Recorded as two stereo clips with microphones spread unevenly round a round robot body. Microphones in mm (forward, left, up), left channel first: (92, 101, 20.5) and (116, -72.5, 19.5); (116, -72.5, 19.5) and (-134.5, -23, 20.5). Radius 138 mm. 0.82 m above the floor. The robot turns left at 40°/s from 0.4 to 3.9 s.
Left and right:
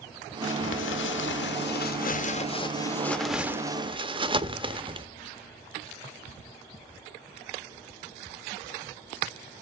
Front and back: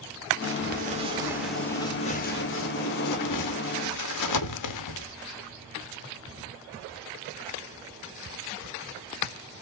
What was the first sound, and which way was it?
Crumpling, 125° left.